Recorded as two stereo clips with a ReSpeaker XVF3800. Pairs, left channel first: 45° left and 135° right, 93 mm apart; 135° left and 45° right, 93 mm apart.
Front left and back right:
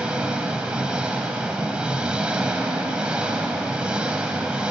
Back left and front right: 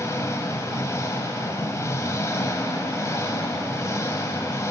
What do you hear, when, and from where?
0.0 s an engine running: 155° left, 1.1 m